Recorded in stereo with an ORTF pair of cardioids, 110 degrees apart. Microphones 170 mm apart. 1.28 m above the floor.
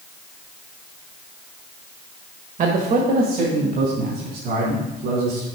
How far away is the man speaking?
About 1.8 m.